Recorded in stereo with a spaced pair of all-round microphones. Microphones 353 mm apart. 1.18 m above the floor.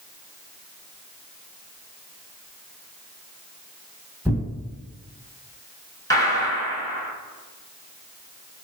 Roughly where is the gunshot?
Centre.